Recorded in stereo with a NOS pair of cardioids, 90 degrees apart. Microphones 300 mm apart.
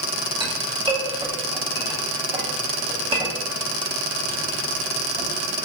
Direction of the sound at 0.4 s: 20° right.